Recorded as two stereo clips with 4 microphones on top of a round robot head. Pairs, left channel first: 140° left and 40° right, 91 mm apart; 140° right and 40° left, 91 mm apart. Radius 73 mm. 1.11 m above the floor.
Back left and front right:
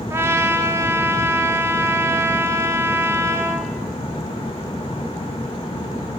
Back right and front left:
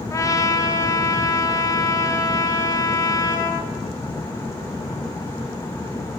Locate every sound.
0.1 s a trumpet: 95° right, 0.8 m